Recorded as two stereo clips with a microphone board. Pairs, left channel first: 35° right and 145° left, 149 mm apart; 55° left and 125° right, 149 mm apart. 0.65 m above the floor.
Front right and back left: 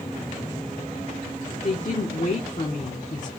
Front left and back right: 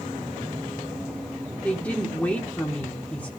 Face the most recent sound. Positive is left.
turn(degrees=-25)